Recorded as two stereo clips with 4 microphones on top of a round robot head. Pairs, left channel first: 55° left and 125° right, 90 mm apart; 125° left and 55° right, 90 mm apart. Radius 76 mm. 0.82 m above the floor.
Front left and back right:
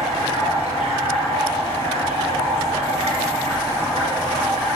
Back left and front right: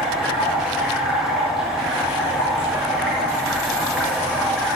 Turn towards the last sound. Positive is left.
turn(degrees=-140)